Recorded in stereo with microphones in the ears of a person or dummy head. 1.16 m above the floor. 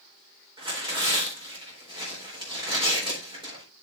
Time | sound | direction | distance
0.6 | tearing paper | 20° right (ahead or behind) | 4 m